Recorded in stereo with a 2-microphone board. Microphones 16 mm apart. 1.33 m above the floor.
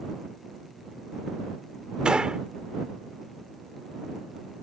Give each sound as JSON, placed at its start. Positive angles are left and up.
{"t": 2.0, "sound": "a gunshot", "side_deg": -70}